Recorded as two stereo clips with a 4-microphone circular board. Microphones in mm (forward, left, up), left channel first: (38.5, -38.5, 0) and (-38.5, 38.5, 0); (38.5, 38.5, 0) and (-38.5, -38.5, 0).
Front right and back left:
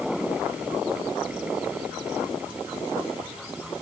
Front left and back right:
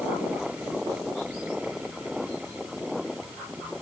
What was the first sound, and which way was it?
Only background noise.